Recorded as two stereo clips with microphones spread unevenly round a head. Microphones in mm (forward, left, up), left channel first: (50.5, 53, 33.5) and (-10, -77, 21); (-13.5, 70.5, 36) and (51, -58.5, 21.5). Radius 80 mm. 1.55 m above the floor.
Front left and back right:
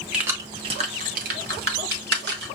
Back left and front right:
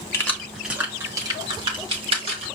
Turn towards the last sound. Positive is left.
turn(degrees=-120)